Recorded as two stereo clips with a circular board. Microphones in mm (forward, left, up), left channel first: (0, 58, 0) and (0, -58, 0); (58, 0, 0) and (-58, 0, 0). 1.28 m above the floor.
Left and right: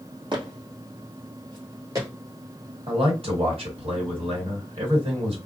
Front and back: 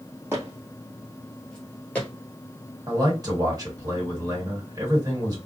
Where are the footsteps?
120° right, 1.9 m; by 2.1 s 60° right, 1.5 m.